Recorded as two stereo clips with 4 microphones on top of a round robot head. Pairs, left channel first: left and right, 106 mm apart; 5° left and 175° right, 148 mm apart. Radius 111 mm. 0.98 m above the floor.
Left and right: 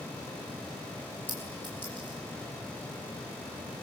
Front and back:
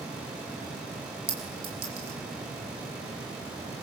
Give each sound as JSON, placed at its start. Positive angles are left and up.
{"t": 1.3, "sound": "a clink", "azimuth_deg": 170, "distance_m": 6.5}